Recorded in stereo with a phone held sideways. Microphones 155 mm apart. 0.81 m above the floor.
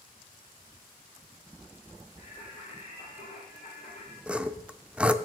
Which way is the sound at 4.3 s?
5° right (ahead or behind).